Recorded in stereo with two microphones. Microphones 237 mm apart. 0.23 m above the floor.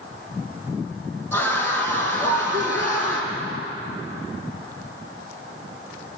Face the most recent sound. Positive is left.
turn(degrees=15)  # may be behind; listen again after turning